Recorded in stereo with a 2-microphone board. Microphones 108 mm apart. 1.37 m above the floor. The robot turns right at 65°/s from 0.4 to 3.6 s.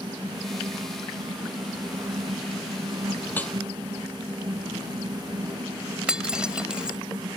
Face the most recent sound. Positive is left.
turn(degrees=-10)  # may be behind; listen again after turning